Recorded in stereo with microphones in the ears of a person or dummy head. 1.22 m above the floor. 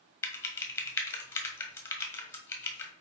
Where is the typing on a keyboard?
10° left (ahead or behind), 1.5 m.